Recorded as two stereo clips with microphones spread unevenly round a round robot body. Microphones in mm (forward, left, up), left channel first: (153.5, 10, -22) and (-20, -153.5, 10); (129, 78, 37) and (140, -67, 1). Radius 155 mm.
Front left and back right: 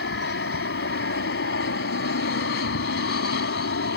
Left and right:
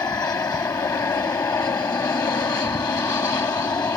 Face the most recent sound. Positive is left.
turn(degrees=25)